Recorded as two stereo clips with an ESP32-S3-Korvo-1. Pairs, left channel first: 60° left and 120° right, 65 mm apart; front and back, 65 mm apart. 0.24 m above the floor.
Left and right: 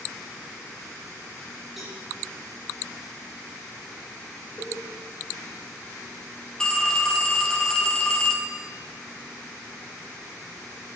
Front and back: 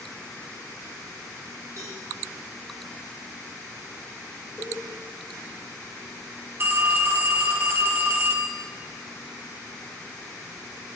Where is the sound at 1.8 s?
150° left, 5.5 m.